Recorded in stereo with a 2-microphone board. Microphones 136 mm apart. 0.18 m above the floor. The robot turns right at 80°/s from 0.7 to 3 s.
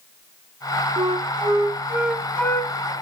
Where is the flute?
100° right, 0.8 m; by 2.9 s 60° left, 0.8 m.